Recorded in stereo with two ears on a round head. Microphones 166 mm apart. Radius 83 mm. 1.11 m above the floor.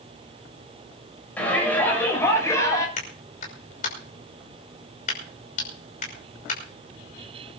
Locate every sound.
1.4 s a shout: 10° left (ahead or behind), 7.5 m; by 2.9 s 20° left (ahead or behind), 6.5 m
3.0 s a clap: 45° left (ahead or behind), 6 m